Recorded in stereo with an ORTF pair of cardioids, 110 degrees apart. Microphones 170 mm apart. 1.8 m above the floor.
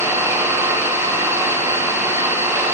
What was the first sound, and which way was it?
An engine running, 15° right.